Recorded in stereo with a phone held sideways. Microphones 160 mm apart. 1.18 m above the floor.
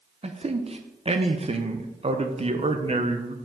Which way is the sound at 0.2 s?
40° right (ahead or behind).